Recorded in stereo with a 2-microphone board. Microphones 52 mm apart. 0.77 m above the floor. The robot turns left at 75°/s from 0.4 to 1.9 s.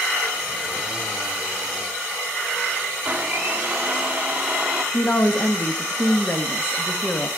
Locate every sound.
3.0 s a blender: 25° right (ahead or behind), 1.6 m
4.9 s a woman speaking: 45° left (ahead or behind), 1.2 m